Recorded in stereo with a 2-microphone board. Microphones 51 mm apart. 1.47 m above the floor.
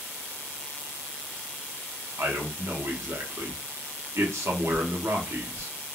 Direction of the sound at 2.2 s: 65° right (ahead or behind).